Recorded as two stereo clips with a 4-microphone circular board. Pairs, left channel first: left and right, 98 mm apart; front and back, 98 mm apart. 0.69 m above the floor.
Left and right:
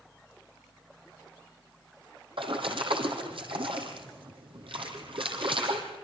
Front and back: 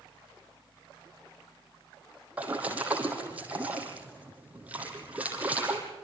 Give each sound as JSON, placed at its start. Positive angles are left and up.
{"t": 2.4, "sound": "a splash", "azimuth_deg": -105, "distance_m": 4.0}